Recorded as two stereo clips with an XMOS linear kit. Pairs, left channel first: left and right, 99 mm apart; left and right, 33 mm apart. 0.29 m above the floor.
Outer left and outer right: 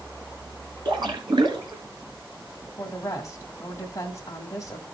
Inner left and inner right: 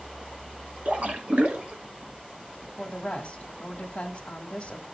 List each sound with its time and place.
0.8 s a splash: 50° right (ahead or behind), 1.6 m
2.8 s a woman speaking: 30° left (ahead or behind), 1.4 m